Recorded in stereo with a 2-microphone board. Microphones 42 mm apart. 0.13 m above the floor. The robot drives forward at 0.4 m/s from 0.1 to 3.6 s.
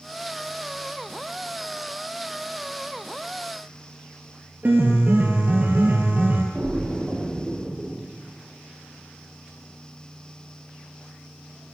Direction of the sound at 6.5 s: 25° right (ahead or behind).